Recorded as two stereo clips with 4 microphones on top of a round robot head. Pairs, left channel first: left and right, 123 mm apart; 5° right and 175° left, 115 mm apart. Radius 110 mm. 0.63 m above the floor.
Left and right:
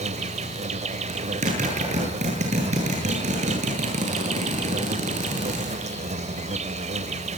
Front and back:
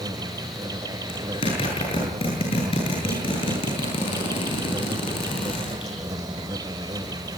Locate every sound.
0.0 s an insect: 120° right, 1.4 m
1.1 s a zipper: 55° right, 9.5 m